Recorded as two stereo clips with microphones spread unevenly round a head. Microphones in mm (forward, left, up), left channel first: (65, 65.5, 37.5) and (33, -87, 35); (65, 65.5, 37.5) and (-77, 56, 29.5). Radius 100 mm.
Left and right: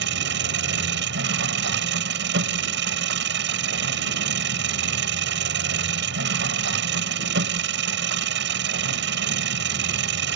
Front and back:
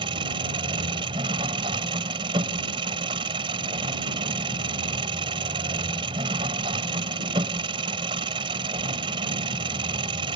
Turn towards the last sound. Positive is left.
turn(degrees=-110)